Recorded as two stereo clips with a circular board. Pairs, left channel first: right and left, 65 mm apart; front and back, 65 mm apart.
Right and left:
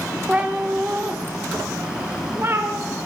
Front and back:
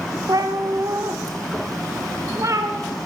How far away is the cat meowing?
About 2 m.